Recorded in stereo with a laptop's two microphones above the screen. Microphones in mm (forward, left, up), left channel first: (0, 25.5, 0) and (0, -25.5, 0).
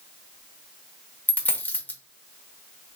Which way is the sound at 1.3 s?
30° left (ahead or behind).